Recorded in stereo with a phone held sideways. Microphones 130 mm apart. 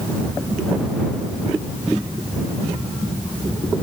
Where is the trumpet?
I don't hear a trumpet.